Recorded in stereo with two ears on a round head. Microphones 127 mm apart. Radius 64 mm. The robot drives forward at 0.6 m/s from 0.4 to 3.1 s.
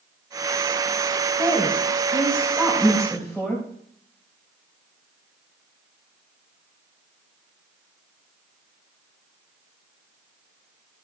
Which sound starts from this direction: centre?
A woman speaking, at 1.4 s.